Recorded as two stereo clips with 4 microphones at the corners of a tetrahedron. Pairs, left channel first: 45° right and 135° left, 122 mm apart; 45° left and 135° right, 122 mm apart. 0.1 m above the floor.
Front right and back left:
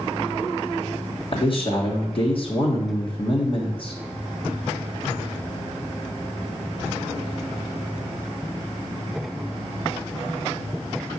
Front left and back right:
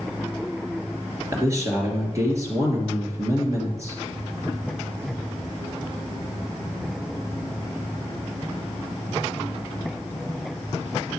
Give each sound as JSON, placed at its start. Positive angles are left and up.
{"t": 1.3, "sound": "a man speaking", "azimuth_deg": -75, "distance_m": 2.5}